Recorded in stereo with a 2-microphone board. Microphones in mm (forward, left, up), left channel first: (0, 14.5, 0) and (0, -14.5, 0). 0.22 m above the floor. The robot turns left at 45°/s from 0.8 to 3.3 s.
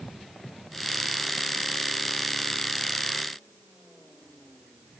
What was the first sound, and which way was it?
Only background noise.